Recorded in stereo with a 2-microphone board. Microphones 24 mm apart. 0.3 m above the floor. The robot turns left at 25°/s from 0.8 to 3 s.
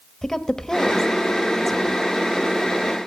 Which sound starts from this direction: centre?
A woman speaking, at 0.2 s.